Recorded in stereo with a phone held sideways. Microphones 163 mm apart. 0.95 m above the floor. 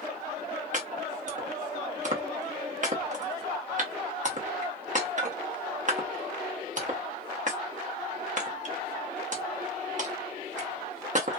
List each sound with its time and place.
0.7 s chopping: 50° right (ahead or behind), 0.7 m